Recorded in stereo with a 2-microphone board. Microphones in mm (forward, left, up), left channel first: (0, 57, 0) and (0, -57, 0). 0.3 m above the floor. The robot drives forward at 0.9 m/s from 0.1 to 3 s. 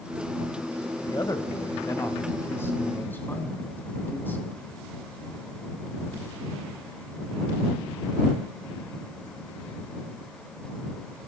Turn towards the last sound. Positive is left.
turn(degrees=15)  # may be behind; listen again after turning